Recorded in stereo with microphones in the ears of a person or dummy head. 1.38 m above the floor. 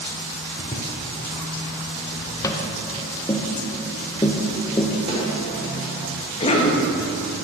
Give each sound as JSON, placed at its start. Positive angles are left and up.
{"t": 0.6, "sound": "footsteps", "side_deg": 25, "distance_m": 1.5}
{"t": 2.4, "sound": "tapping", "side_deg": 15, "distance_m": 0.7}
{"t": 5.1, "sound": "a snare drum", "side_deg": -35, "distance_m": 3.5}
{"t": 6.4, "sound": "a cough", "side_deg": 35, "distance_m": 1.7}